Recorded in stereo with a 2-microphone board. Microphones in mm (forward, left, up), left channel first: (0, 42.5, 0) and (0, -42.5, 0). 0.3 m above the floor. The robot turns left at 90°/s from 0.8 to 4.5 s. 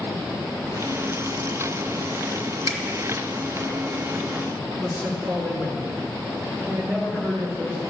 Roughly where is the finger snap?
Right.